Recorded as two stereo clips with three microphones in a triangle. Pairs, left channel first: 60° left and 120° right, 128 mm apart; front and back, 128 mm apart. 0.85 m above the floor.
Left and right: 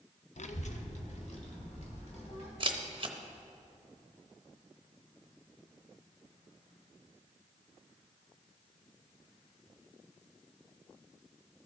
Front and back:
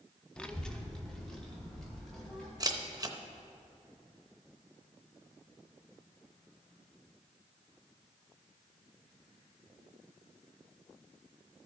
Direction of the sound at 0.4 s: 80° left.